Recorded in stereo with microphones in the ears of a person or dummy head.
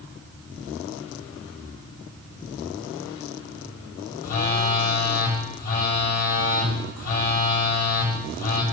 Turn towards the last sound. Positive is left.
turn(degrees=40)  # may be behind; listen again after turning